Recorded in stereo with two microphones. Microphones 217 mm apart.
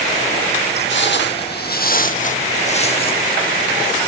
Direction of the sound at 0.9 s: 60° left (ahead or behind).